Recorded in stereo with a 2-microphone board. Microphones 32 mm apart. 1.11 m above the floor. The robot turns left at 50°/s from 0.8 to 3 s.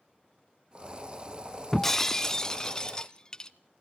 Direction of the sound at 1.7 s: 10° left (ahead or behind).